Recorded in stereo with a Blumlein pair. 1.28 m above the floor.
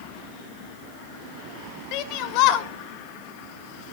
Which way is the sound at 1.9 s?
40° left.